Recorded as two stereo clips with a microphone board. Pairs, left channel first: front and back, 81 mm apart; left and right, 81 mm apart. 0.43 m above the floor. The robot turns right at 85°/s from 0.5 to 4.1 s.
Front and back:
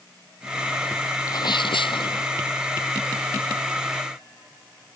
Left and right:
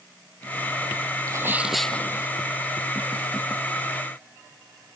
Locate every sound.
1.3 s a sneeze: 45° right; by 2.3 s 45° left